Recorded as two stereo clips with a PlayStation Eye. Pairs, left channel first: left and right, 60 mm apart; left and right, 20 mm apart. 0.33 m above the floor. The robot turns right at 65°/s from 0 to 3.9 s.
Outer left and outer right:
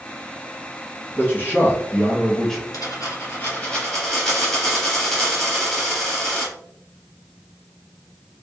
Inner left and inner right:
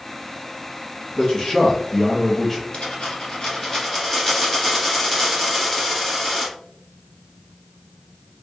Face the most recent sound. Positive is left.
turn(degrees=175)